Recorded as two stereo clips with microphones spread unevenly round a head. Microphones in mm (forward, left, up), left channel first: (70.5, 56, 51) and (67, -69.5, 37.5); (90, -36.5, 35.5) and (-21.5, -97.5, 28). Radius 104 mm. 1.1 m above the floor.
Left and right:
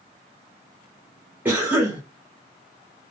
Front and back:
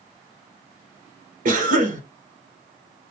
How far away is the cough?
About 0.8 m.